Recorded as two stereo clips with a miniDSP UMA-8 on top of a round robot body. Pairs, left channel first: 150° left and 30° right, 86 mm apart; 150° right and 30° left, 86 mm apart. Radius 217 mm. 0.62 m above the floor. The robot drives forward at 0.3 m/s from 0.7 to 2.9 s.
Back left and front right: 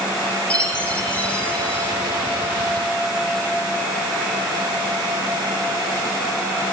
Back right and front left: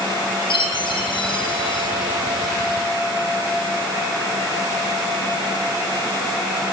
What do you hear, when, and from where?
0.5 s a chime: 135° right, 5 m